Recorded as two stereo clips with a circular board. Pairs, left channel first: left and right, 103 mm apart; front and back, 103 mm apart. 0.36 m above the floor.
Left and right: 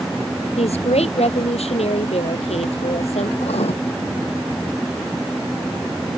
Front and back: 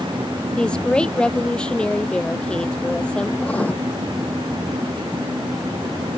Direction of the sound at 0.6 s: 80° left.